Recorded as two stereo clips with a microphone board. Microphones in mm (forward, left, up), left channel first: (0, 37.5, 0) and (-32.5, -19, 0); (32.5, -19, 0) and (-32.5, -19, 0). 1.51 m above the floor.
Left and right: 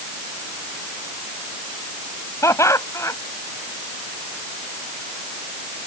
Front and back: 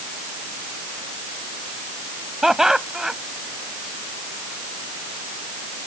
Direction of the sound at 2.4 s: 100° left.